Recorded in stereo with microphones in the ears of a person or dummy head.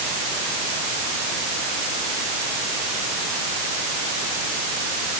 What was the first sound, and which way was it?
Only background noise.